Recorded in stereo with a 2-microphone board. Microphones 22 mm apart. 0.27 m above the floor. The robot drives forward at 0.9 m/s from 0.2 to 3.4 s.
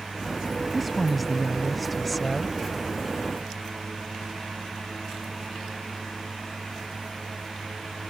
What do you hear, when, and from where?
0.7 s a woman speaking: centre (ahead or behind)